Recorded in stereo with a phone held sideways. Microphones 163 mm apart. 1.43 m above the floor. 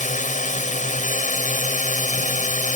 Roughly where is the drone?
Left.